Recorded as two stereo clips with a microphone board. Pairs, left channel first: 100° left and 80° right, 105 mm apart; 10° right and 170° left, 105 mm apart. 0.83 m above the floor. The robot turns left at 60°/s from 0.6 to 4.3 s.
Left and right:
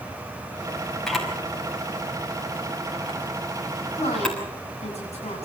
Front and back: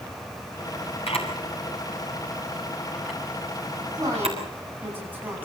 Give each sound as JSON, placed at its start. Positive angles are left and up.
{"t": 1.1, "sound": "a camera shutter", "azimuth_deg": 15, "distance_m": 6.0}
{"t": 3.9, "sound": "a woman speaking", "azimuth_deg": 120, "distance_m": 8.5}